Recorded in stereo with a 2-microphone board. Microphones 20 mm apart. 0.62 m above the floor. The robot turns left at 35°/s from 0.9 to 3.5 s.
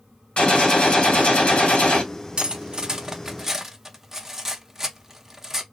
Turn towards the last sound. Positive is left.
turn(degrees=-20)  # may be behind; listen again after turning